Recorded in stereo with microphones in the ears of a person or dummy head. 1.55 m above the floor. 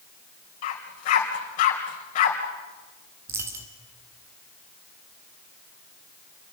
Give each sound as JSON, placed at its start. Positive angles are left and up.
{"t": 0.6, "sound": "a dog barking", "side_deg": 45, "distance_m": 3.5}
{"t": 3.3, "sound": "a dropped coin", "side_deg": -15, "distance_m": 1.1}